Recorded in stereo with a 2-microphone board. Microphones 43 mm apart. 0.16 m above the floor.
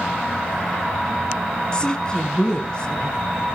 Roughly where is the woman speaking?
Left.